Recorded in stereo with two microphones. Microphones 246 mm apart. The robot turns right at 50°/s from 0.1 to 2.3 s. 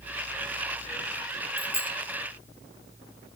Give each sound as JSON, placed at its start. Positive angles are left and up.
{"t": 1.6, "sound": "a bicycle bell", "side_deg": 25, "distance_m": 2.0}